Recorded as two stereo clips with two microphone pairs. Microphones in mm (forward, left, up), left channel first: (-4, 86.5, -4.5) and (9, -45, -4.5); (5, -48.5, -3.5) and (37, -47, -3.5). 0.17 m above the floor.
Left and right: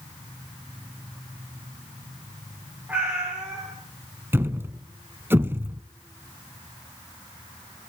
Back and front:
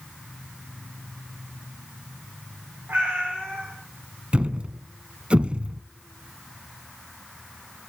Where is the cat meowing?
5° right, 7 m.